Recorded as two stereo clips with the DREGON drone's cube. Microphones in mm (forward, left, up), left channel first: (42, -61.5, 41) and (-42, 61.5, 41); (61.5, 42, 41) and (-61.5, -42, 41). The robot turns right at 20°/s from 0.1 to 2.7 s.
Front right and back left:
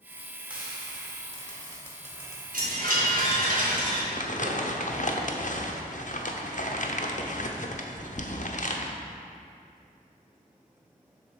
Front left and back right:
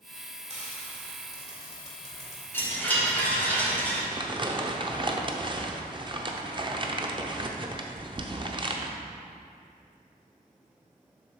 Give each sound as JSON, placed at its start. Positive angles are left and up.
{"t": 0.5, "sound": "frying", "azimuth_deg": -155, "distance_m": 1.6}
{"t": 2.5, "sound": "a chime", "azimuth_deg": 110, "distance_m": 1.5}
{"t": 4.1, "sound": "crumpling", "azimuth_deg": -90, "distance_m": 0.6}